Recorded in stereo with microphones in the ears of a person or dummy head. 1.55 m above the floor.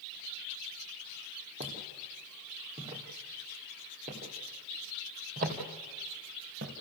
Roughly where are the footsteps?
Right.